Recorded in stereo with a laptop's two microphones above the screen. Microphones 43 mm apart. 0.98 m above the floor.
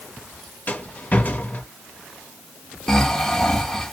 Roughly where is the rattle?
Left.